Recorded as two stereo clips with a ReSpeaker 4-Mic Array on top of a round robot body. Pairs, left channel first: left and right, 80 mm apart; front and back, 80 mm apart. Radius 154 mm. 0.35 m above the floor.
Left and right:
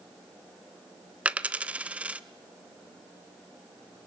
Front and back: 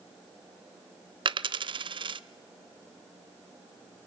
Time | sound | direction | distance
1.2 | a dropped coin | 165° right | 0.8 m